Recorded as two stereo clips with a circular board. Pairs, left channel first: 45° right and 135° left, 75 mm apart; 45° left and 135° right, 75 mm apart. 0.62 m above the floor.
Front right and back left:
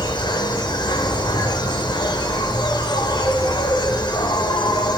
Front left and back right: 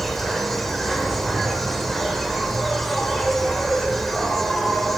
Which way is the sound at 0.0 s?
40° right.